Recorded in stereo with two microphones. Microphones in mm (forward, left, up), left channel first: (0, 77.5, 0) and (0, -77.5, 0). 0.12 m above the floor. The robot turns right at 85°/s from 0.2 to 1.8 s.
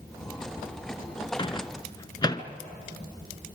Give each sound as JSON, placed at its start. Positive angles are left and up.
{"t": 1.4, "sound": "a microwave", "side_deg": 35, "distance_m": 0.9}